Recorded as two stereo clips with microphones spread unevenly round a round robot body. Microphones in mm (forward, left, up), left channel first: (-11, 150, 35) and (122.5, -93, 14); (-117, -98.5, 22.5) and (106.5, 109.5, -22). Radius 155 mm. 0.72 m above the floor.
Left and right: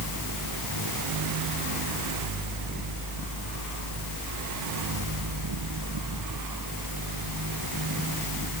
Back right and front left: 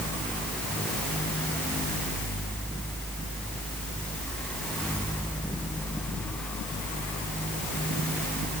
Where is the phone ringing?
I don't hear a phone ringing.